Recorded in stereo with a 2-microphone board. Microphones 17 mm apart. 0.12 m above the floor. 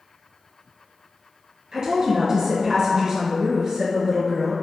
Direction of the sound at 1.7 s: 40° right (ahead or behind).